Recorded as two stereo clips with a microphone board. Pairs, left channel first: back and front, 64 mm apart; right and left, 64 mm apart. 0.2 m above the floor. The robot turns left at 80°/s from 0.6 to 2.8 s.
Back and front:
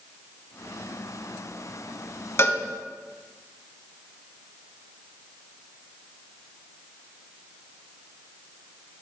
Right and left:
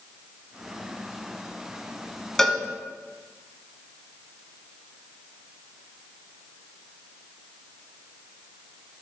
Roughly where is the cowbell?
Behind.